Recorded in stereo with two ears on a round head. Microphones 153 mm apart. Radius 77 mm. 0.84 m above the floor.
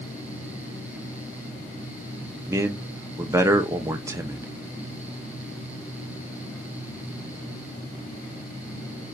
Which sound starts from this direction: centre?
A man speaking, at 2.5 s.